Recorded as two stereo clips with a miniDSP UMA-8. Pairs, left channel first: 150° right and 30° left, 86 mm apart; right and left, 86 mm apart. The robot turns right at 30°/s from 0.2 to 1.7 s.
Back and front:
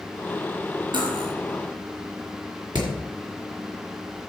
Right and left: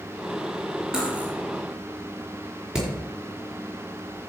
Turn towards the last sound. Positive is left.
turn(degrees=10)